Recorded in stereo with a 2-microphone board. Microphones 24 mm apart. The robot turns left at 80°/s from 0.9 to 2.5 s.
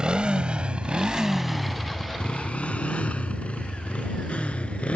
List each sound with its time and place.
0.0 s a motorcycle: 45° right (ahead or behind); by 5.0 s 55° left (ahead or behind)